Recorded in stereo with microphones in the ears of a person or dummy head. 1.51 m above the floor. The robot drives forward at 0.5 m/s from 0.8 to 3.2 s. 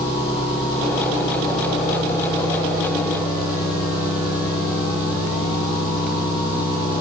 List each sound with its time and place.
0.0 s an engine running: 30° left (ahead or behind), 9.5 m; by 7.0 s 25° left (ahead or behind), 10.5 m